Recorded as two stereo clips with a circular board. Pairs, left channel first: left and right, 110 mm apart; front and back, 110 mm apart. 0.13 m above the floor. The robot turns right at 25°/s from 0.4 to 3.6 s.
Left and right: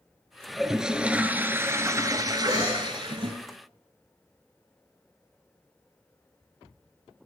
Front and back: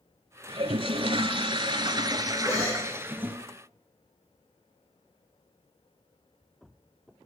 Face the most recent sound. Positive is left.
turn(degrees=-35)